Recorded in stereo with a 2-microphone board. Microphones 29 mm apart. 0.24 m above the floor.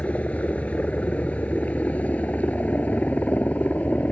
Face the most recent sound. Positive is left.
turn(degrees=65)  # may be behind; listen again after turning